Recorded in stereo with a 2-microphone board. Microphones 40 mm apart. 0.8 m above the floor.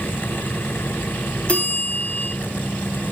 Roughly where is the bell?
Left.